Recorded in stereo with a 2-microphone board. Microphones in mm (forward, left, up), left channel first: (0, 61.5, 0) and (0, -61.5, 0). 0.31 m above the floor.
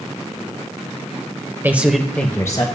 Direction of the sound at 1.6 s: 20° right (ahead or behind).